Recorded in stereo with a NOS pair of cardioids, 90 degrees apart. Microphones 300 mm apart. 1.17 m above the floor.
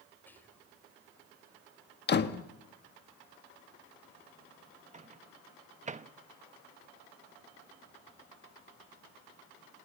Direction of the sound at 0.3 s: 5° left.